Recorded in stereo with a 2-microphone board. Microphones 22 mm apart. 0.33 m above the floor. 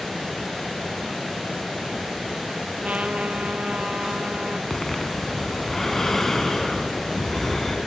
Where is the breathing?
15° left (ahead or behind), 3.5 m.